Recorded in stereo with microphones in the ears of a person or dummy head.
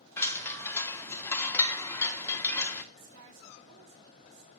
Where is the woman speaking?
70° right (ahead or behind), 3 m.